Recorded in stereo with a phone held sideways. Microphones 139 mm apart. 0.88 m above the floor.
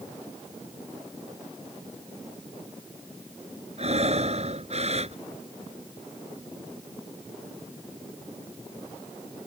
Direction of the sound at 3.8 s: 50° right (ahead or behind).